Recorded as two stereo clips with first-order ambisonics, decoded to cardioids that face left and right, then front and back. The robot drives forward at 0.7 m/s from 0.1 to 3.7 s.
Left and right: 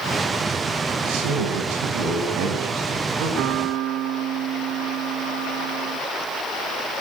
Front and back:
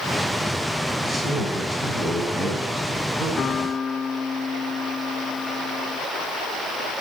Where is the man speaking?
100° right, 7.5 m; by 3.3 s 110° right, 8 m.